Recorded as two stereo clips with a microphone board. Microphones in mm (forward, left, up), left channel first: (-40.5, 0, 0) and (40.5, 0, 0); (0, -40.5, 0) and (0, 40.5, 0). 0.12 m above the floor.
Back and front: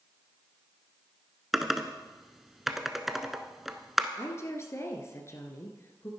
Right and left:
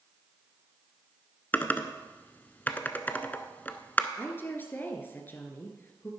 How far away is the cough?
No cough in this recording.